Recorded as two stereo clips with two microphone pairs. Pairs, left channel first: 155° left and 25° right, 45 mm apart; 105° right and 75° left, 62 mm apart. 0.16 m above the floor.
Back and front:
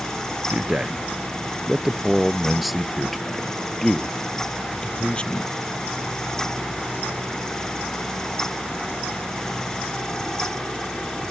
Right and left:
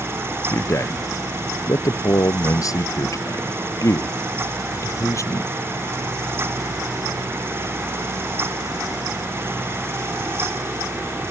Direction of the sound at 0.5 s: 80° right.